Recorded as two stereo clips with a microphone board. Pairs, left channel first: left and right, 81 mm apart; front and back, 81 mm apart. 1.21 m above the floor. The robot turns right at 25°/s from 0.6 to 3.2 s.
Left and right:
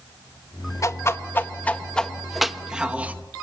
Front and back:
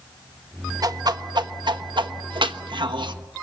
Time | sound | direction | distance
0.8 | a whoosh | 140° left | 1.2 m